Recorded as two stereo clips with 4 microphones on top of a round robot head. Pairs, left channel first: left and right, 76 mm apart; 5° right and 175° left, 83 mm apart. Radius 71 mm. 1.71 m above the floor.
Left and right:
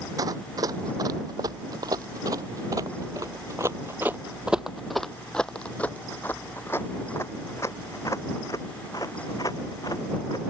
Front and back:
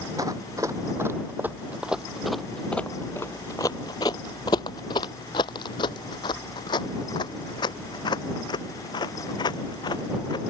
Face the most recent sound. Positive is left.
turn(degrees=30)